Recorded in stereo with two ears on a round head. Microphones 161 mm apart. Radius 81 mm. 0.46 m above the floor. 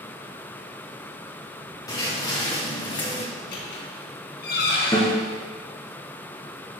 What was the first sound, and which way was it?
Footsteps, 20° left (ahead or behind).